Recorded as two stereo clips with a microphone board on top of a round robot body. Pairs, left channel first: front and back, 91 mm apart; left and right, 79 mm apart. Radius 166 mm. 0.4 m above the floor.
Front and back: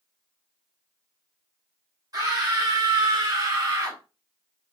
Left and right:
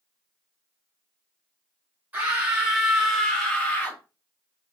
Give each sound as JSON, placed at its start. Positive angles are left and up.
{"t": 2.1, "sound": "a scream", "azimuth_deg": -155, "distance_m": 1.7}